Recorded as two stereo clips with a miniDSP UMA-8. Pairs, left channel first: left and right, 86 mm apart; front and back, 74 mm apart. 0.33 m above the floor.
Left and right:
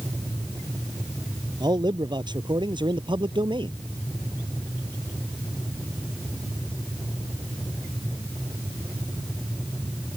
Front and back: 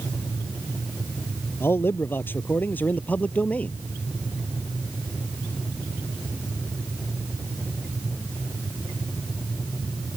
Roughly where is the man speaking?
Ahead right.